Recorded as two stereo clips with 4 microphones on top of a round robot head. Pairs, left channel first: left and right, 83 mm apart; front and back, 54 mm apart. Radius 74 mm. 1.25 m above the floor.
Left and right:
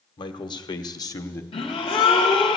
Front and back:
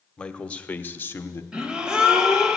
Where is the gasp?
110° left, 1.5 m.